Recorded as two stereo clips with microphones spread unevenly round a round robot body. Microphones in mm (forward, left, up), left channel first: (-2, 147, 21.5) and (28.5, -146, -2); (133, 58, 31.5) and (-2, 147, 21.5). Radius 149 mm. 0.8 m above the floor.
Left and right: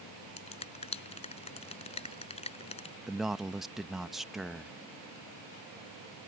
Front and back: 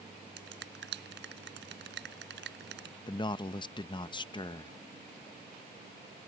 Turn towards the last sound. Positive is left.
turn(degrees=-5)